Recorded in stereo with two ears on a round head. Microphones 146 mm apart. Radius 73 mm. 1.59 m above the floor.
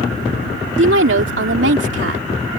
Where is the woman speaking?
80° right.